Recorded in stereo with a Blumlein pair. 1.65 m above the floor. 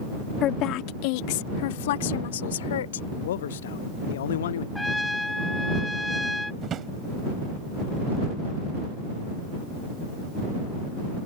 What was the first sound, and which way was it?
A woman speaking, 35° left.